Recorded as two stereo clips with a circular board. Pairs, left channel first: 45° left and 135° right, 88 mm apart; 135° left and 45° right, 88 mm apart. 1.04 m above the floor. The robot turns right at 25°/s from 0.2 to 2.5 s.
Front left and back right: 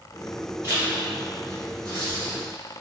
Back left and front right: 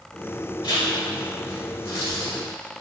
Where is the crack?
I don't hear a crack.